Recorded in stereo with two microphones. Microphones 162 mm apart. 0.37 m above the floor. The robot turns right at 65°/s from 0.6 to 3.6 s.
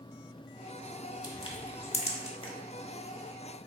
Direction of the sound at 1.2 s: 25° left (ahead or behind).